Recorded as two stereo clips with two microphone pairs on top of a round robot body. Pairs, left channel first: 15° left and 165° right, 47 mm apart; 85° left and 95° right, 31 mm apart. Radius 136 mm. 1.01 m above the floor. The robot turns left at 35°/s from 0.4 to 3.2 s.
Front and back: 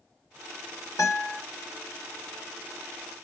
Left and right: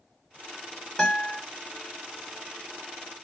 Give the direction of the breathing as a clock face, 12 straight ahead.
No breathing in this recording.